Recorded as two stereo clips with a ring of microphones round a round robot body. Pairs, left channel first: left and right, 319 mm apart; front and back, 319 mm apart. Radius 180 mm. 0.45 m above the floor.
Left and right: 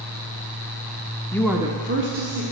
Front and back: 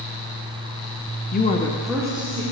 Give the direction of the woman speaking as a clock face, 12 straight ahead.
11 o'clock.